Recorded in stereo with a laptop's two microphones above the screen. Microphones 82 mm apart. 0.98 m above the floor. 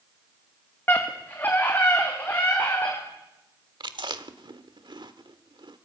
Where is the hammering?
No hammering in this recording.